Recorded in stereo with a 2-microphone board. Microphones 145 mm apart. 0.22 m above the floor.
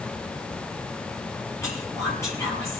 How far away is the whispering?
About 5 m.